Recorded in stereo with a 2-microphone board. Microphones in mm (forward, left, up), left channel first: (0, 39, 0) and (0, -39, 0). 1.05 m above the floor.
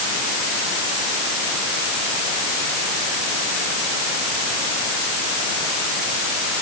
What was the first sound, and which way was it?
Only background noise.